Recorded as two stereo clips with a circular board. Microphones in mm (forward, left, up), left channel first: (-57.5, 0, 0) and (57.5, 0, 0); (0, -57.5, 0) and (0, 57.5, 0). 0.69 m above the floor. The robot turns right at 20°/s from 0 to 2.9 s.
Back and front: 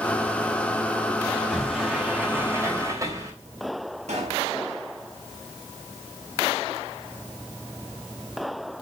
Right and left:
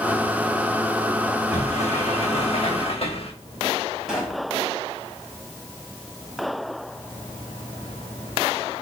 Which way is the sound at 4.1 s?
5° left.